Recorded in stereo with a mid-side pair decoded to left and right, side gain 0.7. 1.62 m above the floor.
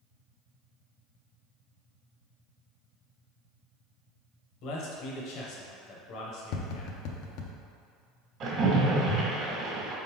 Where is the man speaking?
60° left, 1.0 m.